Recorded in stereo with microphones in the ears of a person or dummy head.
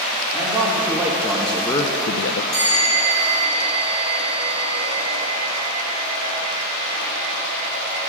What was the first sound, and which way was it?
A man speaking, 20° right (ahead or behind).